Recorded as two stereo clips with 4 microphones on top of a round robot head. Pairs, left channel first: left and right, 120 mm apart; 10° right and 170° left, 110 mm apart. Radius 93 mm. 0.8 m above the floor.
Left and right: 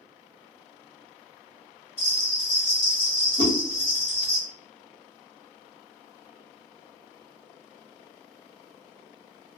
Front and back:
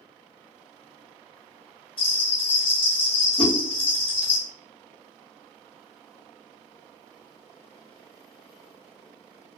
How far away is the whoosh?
About 1.1 m.